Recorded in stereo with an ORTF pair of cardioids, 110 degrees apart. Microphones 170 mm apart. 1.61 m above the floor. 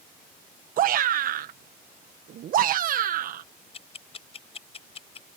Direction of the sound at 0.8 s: 55° right.